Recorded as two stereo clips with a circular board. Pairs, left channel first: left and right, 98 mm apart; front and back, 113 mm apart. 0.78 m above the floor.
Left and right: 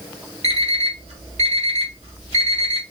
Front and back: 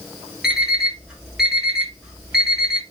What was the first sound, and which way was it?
An alarm clock, 95° right.